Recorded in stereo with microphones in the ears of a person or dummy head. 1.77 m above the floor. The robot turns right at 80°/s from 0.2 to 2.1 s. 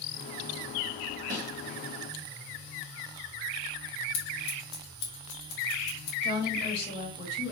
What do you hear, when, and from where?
1.3 s a snare drum: 50° right (ahead or behind), 2 m; by 1.5 s 35° right (ahead or behind), 2 m
4.1 s scissors: 65° left (ahead or behind), 1.9 m
6.2 s a woman speaking: 35° left (ahead or behind), 2.5 m